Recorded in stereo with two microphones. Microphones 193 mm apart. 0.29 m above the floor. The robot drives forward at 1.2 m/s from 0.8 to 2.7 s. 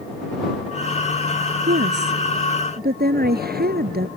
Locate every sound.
1.7 s a woman speaking: 70° right (ahead or behind); by 4.1 s 55° right (ahead or behind)